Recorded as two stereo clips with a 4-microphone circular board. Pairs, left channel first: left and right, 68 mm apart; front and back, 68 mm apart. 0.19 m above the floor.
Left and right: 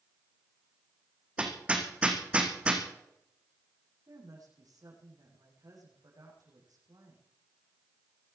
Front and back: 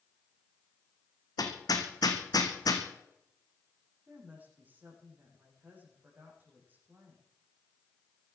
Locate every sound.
1.4 s hammering: 20° right, 3 m
4.1 s a woman speaking: 115° right, 9.5 m